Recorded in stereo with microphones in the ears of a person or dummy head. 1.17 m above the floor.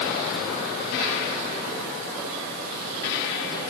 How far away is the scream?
I don't hear a scream.